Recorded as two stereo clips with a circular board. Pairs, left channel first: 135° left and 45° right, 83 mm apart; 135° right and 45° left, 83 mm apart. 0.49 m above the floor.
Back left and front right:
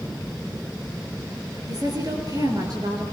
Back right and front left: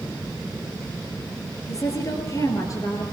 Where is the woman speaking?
85° right, 8 m.